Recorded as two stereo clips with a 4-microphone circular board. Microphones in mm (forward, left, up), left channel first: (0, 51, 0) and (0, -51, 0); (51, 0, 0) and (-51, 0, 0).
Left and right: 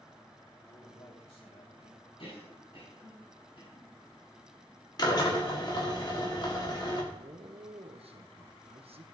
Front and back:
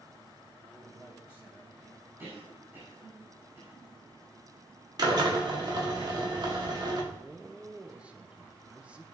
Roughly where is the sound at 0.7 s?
Left.